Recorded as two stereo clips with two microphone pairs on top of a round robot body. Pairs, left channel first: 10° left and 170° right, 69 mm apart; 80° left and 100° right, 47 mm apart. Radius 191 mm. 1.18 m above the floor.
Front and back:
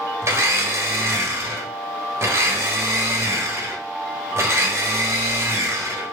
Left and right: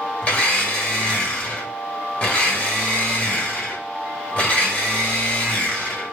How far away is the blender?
About 1.2 m.